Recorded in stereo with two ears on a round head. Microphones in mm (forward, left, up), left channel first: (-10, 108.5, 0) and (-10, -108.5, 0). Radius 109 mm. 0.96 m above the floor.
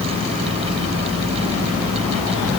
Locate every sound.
Only background noise.